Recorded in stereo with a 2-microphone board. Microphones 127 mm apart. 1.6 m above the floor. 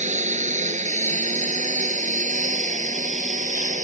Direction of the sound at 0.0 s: 70° right (ahead or behind).